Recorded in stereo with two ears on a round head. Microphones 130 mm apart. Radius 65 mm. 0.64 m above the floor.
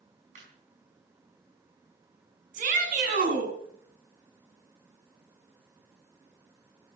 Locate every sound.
0.3 s laughter: 60° right (ahead or behind), 4.5 m
2.5 s a shout: 60° right (ahead or behind), 7 m